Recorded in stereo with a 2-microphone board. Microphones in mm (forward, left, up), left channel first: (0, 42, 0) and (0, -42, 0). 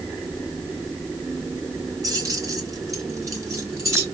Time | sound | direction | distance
2.0 | keys jangling | 45° right (ahead or behind) | 1.3 m